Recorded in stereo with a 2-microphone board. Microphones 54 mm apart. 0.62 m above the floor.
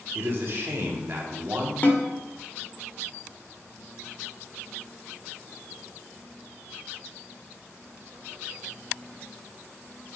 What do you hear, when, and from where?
0.1 s a man speaking: 50° right (ahead or behind), 1.6 m
1.8 s a snare drum: 30° left (ahead or behind), 1.2 m